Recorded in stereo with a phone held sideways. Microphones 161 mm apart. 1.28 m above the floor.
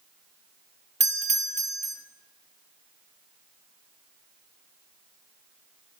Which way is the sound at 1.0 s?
45° right (ahead or behind).